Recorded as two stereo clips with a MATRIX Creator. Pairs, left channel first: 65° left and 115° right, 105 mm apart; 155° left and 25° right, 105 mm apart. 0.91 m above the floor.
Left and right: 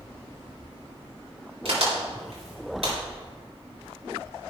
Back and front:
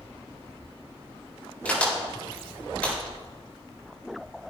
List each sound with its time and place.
1.6 s a crack: 125° right, 4.5 m